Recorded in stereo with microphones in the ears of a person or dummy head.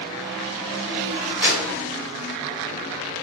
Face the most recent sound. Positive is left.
turn(degrees=-10)  # may be behind; listen again after turning